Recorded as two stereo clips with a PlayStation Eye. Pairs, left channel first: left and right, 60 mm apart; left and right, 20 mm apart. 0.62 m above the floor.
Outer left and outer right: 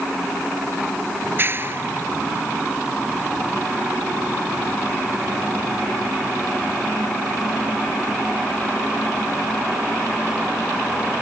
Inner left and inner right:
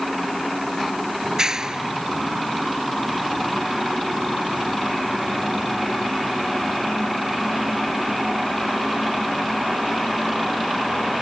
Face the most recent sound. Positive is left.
turn(degrees=-35)  # may be behind; listen again after turning